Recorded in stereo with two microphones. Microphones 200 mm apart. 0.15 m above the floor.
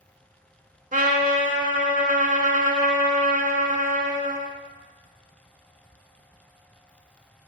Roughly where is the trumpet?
Right.